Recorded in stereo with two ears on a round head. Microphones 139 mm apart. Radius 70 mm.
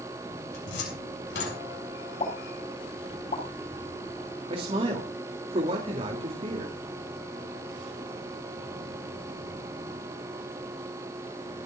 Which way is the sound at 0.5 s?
80° left.